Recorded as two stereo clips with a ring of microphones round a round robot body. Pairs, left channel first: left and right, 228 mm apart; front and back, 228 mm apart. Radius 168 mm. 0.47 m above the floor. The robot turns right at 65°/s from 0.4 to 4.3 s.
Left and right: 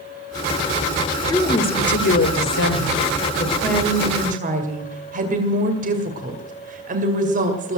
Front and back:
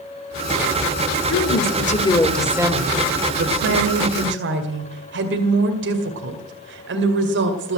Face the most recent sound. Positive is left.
turn(degrees=-145)